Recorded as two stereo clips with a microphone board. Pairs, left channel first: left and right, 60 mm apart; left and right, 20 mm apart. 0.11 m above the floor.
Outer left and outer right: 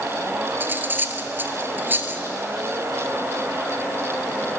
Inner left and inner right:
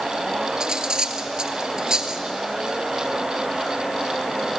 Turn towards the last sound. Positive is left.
turn(degrees=-35)  # may be behind; listen again after turning